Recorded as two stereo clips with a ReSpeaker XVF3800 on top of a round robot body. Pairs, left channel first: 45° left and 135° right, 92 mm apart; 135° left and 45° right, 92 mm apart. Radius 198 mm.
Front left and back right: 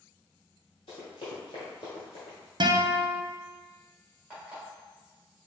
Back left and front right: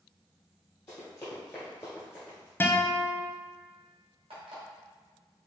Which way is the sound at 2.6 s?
160° right.